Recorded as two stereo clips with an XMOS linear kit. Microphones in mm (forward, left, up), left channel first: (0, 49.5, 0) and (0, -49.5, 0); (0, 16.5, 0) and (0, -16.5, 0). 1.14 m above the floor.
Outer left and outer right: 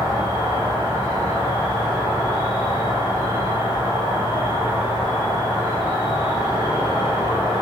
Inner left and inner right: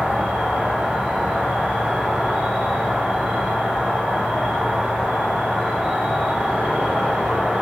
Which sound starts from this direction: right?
An insect, at 0.0 s.